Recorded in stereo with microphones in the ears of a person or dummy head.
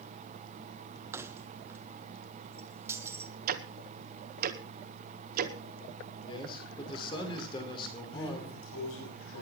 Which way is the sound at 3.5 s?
55° right (ahead or behind).